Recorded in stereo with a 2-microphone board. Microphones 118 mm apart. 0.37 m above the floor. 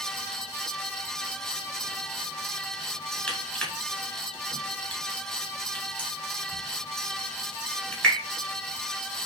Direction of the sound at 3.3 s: 10° left (ahead or behind).